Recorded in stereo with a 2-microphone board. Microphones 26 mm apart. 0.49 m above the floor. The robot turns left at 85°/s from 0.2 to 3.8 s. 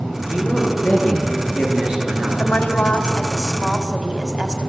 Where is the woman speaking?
95° left, 2.5 m; by 4.7 s 25° right, 2.5 m.